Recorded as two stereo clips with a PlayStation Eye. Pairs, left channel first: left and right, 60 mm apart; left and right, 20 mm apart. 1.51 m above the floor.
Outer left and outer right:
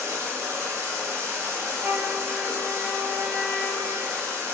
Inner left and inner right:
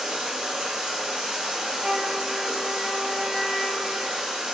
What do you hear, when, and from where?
0.0 s running water: 55° right (ahead or behind), 0.8 m
1.8 s a flute: 45° right (ahead or behind), 2.0 m